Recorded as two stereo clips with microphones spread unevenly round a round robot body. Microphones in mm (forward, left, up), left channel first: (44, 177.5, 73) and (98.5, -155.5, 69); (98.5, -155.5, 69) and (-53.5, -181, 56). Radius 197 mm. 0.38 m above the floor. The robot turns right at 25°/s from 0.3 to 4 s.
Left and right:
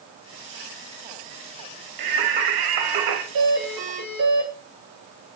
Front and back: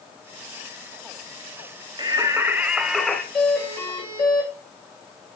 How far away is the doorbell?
About 5.5 m.